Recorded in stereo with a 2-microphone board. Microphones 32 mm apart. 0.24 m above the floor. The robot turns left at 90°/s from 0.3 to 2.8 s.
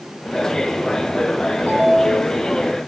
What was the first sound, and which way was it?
A ringtone, 170° left.